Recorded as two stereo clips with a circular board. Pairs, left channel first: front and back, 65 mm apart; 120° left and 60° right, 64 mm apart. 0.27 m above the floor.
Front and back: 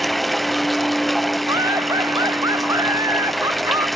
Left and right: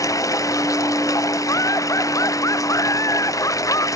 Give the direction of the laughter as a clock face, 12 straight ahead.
7 o'clock.